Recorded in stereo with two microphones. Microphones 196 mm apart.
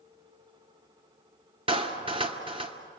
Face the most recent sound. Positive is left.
turn(degrees=-30)  # may be behind; listen again after turning